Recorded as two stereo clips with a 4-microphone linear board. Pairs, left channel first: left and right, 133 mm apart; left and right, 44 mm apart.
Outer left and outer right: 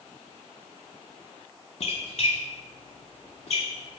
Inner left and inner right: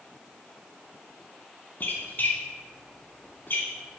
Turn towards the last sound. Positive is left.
turn(degrees=55)  # may be behind; listen again after turning